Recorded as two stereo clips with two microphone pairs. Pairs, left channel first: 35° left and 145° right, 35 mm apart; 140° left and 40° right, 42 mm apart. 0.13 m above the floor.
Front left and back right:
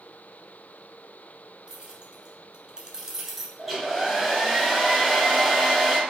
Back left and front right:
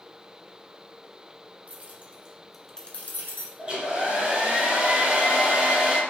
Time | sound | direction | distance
1.7 | keys jangling | 85° right | 1.7 m
3.6 | a hair dryer | 65° right | 1.9 m